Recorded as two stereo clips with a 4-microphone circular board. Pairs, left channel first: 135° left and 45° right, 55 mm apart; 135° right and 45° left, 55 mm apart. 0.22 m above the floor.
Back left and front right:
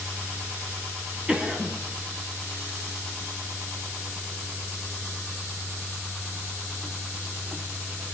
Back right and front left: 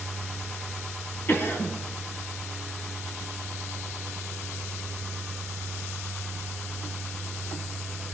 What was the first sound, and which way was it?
A cough, 105° right.